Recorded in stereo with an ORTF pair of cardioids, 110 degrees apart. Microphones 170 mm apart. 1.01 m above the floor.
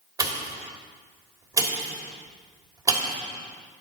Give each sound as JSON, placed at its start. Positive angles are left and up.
{"t": 0.2, "sound": "a pop", "azimuth_deg": -20, "distance_m": 2.5}